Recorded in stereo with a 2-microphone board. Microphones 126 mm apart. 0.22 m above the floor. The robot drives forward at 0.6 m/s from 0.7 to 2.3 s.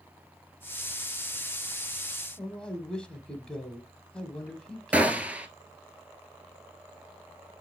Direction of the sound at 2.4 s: 5° left (ahead or behind).